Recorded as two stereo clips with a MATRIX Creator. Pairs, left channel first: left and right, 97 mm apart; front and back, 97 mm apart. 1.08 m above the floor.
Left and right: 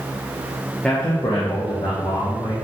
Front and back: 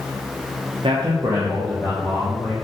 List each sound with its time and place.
0.8 s a man speaking: 170° left, 0.5 m; by 2.5 s 80° left, 1.5 m